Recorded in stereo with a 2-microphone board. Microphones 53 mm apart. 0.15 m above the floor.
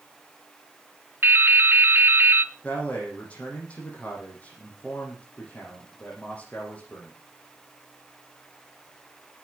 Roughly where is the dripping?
Right.